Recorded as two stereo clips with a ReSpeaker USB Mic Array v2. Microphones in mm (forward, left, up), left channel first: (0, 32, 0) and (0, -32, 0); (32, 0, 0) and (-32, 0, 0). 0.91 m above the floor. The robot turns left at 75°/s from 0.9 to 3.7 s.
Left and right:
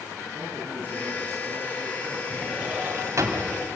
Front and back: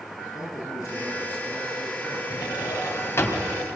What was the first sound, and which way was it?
A man speaking, 30° right.